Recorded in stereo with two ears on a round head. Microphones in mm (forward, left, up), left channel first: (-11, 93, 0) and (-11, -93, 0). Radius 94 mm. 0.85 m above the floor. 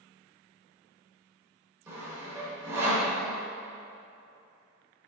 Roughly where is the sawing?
Centre.